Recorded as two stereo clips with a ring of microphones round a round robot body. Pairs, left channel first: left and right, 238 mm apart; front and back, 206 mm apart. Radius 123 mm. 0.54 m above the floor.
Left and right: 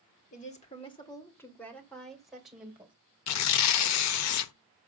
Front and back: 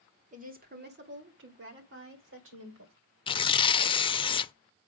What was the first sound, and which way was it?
A woman speaking, 140° left.